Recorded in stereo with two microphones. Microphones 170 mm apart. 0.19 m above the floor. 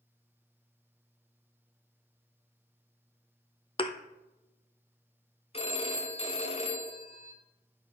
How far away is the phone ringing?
About 1.2 m.